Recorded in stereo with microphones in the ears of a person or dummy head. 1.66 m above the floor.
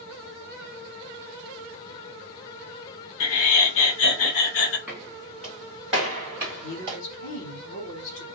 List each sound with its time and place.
3.2 s laughter: 75° left (ahead or behind), 0.9 m
4.9 s footsteps: 5° left (ahead or behind), 2.0 m; by 7.0 s 10° right (ahead or behind), 1.6 m
6.6 s a woman speaking: 75° left (ahead or behind), 0.9 m